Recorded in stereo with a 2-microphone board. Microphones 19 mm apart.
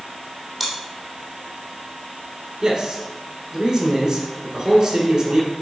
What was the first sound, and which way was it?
Chewing, centre (ahead or behind).